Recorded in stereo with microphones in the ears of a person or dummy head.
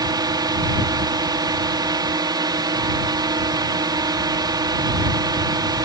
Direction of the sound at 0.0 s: 15° right (ahead or behind).